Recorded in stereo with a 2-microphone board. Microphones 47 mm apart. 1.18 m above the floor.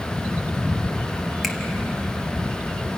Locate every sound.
1.4 s a finger snap: 5° left (ahead or behind), 1.9 m